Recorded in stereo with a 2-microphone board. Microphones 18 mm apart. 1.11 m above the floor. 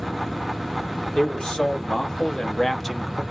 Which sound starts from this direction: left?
A man speaking, at 1.1 s.